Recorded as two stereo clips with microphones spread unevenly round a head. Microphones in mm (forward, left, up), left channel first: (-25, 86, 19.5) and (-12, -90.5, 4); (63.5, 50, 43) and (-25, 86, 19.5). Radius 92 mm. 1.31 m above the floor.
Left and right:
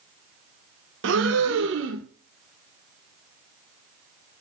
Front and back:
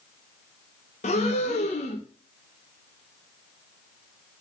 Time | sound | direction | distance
1.0 | breathing | 55° right | 0.8 m